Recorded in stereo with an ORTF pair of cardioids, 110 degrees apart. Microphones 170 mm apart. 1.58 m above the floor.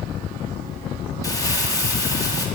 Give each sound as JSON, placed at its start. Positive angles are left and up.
{"t": 1.2, "sound": "crumpling", "azimuth_deg": 20, "distance_m": 2.0}